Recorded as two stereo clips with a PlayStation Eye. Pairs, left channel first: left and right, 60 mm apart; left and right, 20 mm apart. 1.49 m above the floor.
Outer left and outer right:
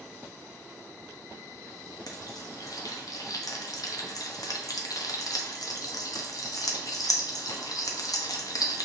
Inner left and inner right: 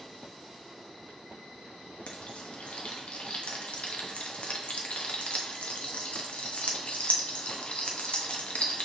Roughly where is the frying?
Left.